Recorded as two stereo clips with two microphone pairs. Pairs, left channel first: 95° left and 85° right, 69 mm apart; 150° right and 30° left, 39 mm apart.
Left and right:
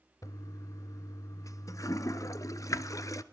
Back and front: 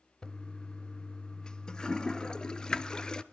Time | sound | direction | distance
0.2 | a toilet flushing | 135° left | 0.6 m